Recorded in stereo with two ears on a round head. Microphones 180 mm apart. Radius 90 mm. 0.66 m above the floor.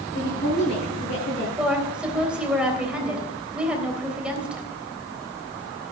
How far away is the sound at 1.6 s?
About 3 m.